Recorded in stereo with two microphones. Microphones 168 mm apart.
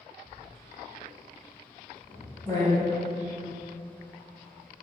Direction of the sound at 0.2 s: 25° left (ahead or behind).